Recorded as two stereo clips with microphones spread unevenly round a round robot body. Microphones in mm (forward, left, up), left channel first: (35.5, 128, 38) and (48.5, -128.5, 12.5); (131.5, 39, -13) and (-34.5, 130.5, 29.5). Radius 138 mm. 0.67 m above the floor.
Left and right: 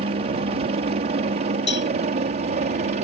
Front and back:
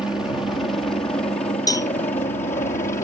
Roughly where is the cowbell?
Ahead left.